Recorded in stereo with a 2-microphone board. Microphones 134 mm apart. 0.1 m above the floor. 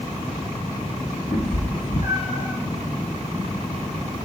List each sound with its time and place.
1.3 s a cat meowing: 75° left (ahead or behind), 2.5 m; by 2.5 s 45° left (ahead or behind), 1.6 m